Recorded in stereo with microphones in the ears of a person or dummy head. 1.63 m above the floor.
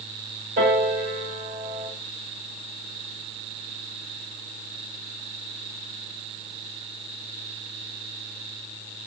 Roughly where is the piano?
Right.